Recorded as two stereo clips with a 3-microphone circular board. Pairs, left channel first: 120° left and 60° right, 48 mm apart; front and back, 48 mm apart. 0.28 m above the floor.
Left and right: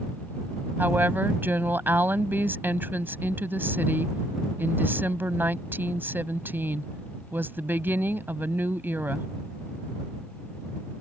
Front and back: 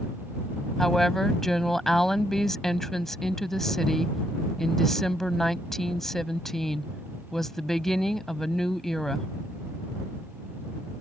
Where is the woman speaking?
80° right.